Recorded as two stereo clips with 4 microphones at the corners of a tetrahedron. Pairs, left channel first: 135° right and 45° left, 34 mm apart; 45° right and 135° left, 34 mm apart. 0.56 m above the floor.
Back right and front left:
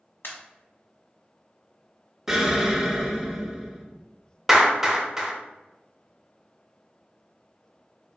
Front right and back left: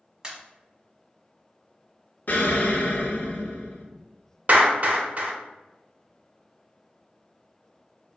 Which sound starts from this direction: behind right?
A pop, at 0.2 s.